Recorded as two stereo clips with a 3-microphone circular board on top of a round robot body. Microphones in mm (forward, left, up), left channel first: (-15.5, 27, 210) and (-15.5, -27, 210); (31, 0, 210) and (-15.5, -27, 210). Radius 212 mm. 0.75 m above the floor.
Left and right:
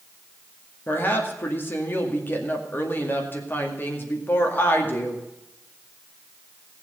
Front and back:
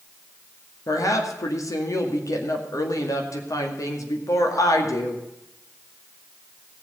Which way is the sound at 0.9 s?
40° left.